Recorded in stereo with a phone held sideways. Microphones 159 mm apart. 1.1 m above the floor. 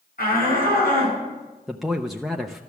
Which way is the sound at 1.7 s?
Centre (ahead or behind).